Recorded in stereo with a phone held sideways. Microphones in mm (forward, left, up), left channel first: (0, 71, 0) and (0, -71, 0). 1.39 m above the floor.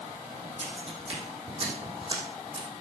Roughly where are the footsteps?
Right.